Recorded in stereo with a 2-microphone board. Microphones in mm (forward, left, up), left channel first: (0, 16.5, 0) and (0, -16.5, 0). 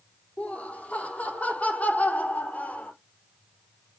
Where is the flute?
No flute in this recording.